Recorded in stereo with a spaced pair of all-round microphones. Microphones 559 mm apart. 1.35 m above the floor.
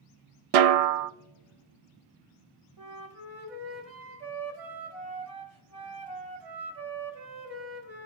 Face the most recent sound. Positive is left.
turn(degrees=-85)